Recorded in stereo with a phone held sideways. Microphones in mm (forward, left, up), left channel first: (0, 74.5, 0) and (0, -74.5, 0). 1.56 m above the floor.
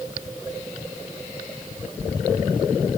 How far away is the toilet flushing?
No toilet flushing in this recording.